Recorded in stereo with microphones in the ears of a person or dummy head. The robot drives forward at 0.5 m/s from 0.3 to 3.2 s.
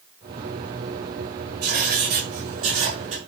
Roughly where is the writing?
Right.